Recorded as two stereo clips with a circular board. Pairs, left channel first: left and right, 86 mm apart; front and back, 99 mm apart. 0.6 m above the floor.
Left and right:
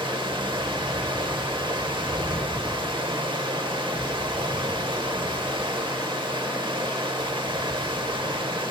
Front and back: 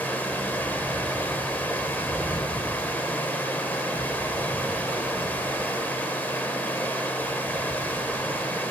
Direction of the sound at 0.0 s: 70° right.